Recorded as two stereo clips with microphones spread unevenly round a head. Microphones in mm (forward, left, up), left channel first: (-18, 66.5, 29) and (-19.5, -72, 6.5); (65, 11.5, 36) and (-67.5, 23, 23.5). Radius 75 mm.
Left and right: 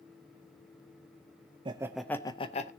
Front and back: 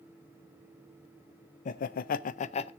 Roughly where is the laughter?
Ahead right.